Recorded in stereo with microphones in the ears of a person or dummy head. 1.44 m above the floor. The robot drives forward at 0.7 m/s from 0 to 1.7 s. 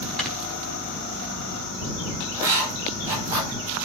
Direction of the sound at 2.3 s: 15° right (ahead or behind).